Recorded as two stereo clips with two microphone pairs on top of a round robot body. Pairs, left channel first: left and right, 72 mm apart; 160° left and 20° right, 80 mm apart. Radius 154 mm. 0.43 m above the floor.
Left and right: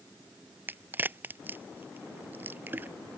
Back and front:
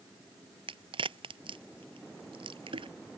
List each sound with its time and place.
0.7 s a crack: 30° right